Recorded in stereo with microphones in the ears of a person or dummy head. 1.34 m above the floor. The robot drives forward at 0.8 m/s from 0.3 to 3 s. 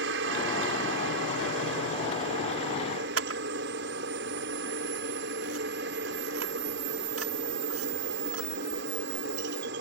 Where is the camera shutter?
80° right.